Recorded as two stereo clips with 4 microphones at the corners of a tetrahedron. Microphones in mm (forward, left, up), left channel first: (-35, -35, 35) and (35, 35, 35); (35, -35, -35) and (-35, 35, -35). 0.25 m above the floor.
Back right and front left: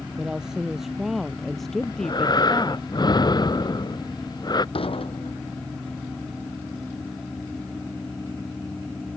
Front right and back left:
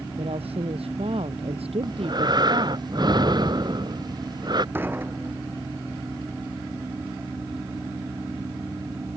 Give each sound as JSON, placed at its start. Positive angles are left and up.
{"t": 0.2, "sound": "a woman speaking", "azimuth_deg": 125}
{"t": 1.8, "sound": "breathing", "azimuth_deg": 180}
{"t": 4.8, "sound": "dishes clattering", "azimuth_deg": -155}